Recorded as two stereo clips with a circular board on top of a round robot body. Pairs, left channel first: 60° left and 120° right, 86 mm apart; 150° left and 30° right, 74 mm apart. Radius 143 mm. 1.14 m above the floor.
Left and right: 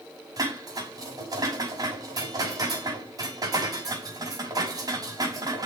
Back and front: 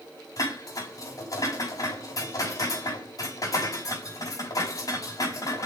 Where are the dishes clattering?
170° right, 6 m.